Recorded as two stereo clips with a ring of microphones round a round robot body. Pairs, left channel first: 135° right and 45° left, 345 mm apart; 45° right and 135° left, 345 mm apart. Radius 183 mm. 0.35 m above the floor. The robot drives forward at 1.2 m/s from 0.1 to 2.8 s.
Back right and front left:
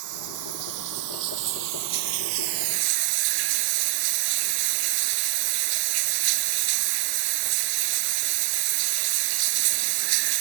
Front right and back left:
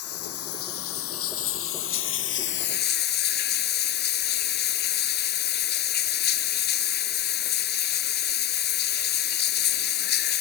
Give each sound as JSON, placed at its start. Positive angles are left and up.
{"t": 0.0, "sound": "running water", "azimuth_deg": 5}